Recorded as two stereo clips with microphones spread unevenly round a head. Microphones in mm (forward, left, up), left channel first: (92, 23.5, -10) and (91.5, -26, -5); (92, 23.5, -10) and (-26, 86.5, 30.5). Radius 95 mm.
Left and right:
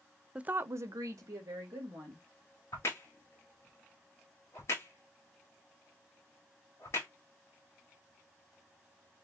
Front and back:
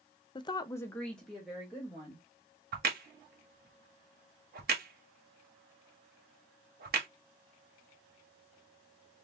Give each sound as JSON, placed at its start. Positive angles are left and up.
{"t": 0.3, "sound": "a woman speaking", "azimuth_deg": -20, "distance_m": 0.5}
{"t": 2.7, "sound": "a crack", "azimuth_deg": 145, "distance_m": 1.1}